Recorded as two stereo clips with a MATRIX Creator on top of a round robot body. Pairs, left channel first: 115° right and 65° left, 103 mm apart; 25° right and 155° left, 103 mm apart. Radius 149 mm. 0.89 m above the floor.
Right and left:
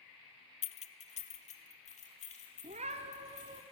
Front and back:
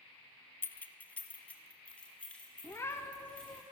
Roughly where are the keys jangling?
Right.